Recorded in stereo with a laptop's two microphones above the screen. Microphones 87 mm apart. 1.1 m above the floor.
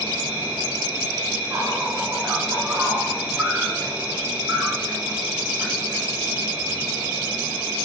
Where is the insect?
20° right (ahead or behind), 0.9 m.